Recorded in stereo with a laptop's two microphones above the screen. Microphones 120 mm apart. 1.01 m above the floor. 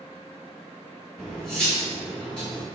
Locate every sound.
1.2 s cutlery clinking: 5° left (ahead or behind), 1.2 m